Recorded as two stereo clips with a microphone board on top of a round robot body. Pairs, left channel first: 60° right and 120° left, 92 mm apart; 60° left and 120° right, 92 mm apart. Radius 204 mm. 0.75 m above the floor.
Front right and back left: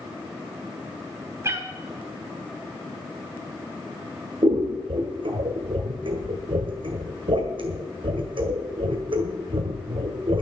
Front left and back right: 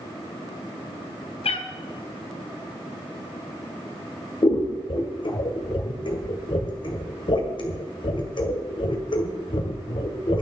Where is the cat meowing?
60° left, 1.4 m.